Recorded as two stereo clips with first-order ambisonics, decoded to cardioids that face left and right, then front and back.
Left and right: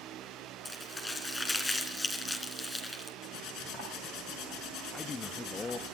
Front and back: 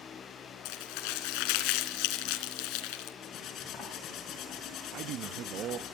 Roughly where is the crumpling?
Ahead.